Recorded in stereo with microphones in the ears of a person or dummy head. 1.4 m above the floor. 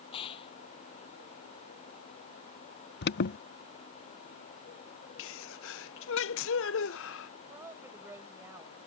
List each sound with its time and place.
0.1 s a gunshot: 30° left (ahead or behind)
3.0 s an alarm: 55° left (ahead or behind)
5.2 s a sneeze: 65° left (ahead or behind)
7.5 s a woman speaking: 10° right (ahead or behind)